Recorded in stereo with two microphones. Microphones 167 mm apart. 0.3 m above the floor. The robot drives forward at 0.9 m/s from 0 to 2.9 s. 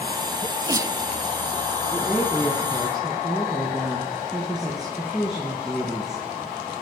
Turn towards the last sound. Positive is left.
turn(degrees=-5)  # may be behind; listen again after turning